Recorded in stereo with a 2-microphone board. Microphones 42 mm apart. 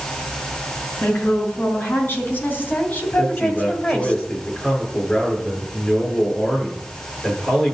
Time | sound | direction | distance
1.0 | a woman speaking | 60° left (ahead or behind) | 5.5 m
3.2 | a man speaking | 30° left (ahead or behind) | 7.5 m